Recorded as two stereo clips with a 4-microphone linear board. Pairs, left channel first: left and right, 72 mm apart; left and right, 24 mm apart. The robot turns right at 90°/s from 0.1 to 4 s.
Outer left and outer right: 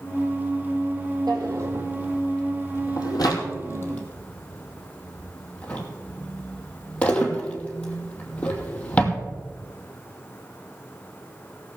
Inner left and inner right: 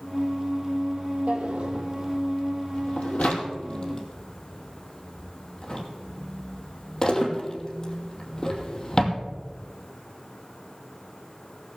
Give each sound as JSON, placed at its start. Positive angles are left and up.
{"t": 1.3, "sound": "a drawer", "side_deg": -80, "distance_m": 2.5}